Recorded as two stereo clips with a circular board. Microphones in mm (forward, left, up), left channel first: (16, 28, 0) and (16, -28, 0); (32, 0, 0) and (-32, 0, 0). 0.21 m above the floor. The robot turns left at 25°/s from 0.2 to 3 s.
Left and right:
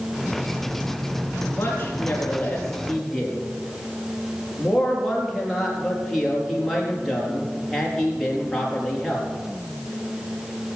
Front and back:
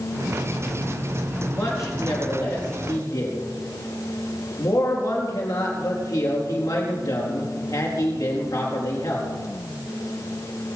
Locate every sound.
1.5 s a man speaking: 40° left, 4.5 m; by 9.3 s straight ahead, 4.5 m